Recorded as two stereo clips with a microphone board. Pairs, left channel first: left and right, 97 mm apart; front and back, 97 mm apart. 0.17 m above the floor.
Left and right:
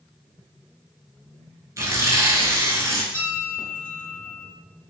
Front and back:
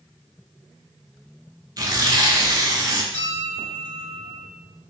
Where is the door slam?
I don't hear a door slam.